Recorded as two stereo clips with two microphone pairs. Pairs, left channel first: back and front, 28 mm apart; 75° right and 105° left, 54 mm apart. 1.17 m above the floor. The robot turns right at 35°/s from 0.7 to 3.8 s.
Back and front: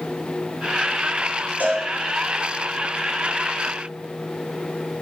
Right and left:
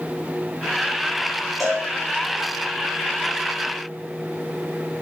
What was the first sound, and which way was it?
A cowbell, 20° left.